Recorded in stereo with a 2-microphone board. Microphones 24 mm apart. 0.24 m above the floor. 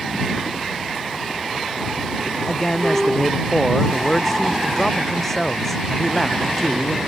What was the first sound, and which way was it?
A man speaking, 15° left (ahead or behind).